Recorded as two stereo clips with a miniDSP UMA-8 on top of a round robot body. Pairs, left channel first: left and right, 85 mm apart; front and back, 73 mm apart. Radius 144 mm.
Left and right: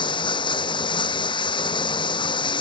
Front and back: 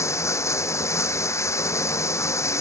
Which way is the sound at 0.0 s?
55° left.